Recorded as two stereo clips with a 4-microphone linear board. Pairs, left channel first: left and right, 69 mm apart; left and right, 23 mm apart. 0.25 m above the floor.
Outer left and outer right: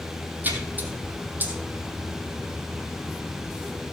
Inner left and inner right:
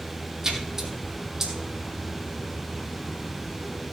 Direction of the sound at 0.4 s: 25° right (ahead or behind).